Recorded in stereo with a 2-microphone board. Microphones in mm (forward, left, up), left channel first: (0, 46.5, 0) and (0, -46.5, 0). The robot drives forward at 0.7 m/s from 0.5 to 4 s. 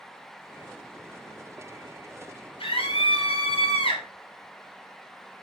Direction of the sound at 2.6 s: 80° left.